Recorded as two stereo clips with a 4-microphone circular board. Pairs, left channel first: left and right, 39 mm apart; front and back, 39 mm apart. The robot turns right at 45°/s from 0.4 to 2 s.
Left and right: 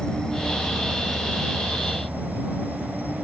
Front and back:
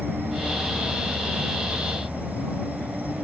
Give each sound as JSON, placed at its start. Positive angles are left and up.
{"t": 0.0, "sound": "an insect", "azimuth_deg": 155}